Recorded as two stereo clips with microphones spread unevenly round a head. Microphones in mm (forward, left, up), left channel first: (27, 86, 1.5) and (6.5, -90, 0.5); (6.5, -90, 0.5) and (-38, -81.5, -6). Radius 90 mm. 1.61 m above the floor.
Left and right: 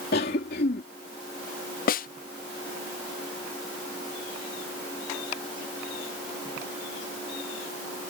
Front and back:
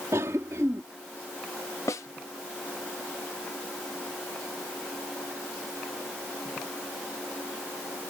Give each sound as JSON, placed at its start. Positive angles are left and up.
{"t": 0.1, "sound": "a cough", "azimuth_deg": 125}
{"t": 1.9, "sound": "a snare drum", "azimuth_deg": 40}